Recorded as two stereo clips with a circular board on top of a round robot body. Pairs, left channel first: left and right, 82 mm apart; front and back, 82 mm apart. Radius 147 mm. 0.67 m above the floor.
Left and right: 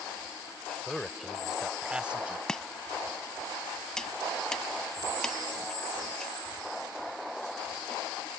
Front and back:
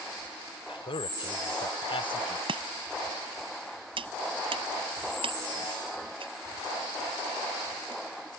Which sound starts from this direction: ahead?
A man speaking, at 0.7 s.